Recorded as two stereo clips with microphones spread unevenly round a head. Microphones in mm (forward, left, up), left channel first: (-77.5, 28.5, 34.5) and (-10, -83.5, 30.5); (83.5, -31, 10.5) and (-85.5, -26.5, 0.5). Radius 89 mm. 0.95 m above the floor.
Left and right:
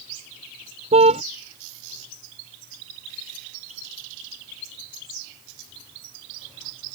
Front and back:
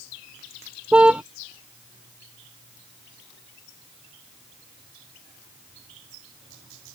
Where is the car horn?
100° right.